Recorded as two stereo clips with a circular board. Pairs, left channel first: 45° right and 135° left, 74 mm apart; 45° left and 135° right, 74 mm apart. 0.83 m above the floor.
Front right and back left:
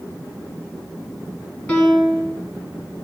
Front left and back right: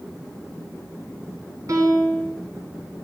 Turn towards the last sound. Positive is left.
turn(degrees=-110)